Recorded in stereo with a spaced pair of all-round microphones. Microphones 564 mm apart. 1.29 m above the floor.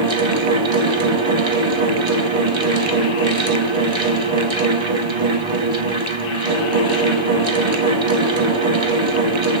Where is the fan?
55° right (ahead or behind), 0.8 m.